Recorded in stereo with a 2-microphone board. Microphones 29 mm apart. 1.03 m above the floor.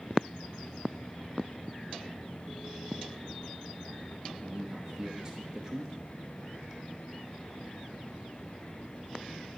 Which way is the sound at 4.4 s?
20° right (ahead or behind).